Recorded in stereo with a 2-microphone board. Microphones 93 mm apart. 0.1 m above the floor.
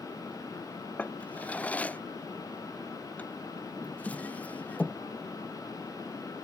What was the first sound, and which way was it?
A drawer, 15° left (ahead or behind).